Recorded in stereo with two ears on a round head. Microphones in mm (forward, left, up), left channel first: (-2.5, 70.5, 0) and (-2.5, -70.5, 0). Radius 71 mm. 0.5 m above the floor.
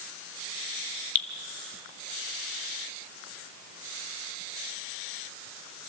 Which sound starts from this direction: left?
Dripping, at 1.1 s.